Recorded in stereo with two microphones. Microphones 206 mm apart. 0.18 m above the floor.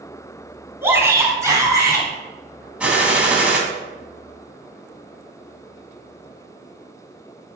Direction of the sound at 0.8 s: 10° right (ahead or behind).